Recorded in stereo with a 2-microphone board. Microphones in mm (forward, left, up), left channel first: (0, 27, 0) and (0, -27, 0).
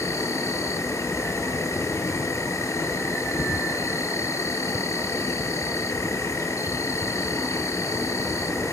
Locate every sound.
0.0 s an insect: 70° left (ahead or behind), 3 m